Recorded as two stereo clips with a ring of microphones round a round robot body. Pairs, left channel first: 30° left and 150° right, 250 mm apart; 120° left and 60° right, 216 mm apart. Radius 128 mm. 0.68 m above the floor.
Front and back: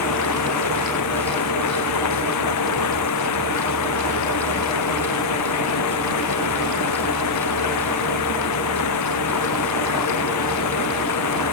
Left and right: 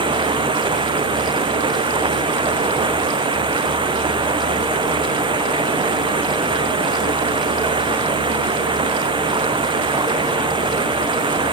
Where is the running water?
10° left.